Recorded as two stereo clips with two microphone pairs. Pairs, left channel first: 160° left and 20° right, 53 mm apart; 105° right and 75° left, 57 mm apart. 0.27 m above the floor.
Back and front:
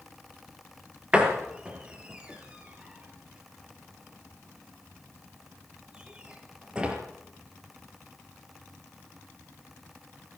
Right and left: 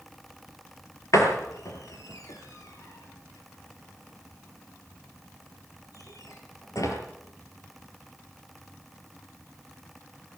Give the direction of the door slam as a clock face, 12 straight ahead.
3 o'clock.